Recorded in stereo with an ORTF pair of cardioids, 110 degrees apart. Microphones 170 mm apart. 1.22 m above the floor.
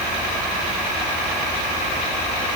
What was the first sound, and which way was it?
Only background noise.